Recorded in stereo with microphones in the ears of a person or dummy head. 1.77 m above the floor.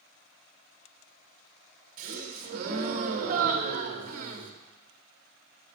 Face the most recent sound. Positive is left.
turn(degrees=-45)  # may be behind; listen again after turning